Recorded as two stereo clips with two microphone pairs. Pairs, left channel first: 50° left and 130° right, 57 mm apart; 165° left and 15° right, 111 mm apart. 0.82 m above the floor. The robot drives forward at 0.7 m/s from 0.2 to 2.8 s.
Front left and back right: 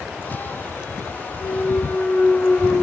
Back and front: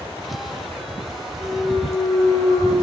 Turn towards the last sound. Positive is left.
turn(degrees=115)